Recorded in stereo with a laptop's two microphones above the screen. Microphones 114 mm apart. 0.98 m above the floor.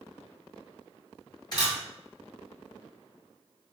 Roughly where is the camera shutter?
Left.